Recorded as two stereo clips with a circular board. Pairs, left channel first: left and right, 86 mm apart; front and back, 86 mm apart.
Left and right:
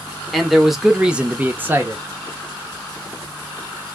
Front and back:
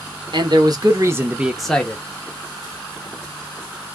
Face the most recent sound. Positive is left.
turn(degrees=-45)